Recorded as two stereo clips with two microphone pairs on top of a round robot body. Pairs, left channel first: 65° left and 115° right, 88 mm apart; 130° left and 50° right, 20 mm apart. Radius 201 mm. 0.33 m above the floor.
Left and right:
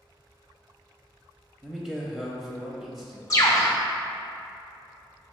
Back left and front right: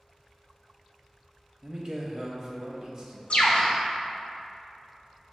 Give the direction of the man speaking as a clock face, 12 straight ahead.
1 o'clock.